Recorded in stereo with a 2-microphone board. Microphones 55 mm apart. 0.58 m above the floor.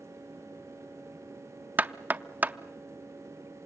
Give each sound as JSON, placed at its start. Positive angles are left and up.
{"t": 1.8, "sound": "knocking", "side_deg": -30, "distance_m": 0.5}